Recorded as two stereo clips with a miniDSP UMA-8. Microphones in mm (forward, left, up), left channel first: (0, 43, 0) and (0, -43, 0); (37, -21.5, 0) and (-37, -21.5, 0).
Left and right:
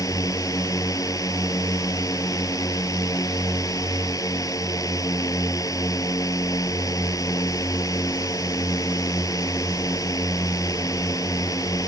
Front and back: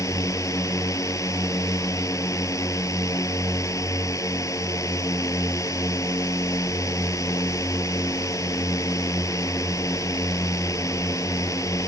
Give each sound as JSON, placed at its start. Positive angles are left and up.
{"t": 0.0, "sound": "a drone", "azimuth_deg": 45}